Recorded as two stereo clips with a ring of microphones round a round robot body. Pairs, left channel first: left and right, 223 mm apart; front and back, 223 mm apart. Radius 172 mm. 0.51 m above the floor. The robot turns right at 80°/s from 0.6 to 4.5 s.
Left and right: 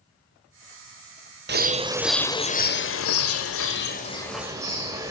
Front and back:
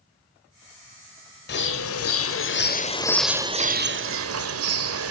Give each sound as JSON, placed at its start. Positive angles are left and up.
{"t": 1.5, "sound": "a bird", "azimuth_deg": -50, "distance_m": 1.5}